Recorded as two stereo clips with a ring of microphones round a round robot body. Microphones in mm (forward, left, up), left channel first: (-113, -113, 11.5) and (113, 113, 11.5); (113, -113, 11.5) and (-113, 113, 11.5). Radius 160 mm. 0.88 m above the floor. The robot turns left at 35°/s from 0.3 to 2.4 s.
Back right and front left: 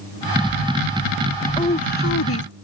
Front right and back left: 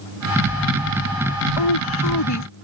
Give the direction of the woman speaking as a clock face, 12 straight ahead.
2 o'clock.